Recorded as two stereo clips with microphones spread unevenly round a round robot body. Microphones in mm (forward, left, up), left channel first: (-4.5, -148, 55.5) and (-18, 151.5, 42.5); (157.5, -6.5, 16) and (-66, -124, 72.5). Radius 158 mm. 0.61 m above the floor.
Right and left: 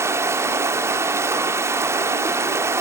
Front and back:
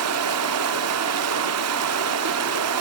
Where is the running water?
170° left, 1.3 m.